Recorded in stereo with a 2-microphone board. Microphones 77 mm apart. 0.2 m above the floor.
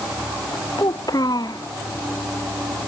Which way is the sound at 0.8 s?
60° left (ahead or behind).